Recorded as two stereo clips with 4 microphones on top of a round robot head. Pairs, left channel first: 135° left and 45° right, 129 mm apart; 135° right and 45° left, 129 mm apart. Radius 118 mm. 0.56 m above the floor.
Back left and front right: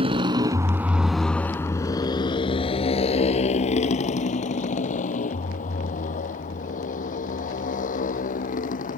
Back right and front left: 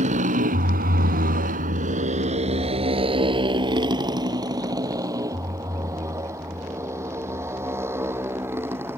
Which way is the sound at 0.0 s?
5° left.